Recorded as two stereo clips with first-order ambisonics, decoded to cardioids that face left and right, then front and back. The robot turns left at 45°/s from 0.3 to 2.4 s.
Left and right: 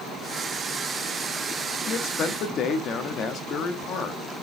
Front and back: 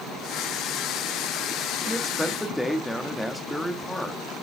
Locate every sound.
1.9 s a man speaking: 105° left, 1.0 m; by 4.2 s 80° left, 1.0 m